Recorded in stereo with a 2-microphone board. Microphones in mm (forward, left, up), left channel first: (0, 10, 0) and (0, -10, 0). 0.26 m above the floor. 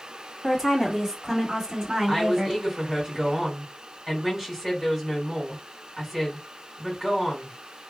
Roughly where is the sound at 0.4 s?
Centre.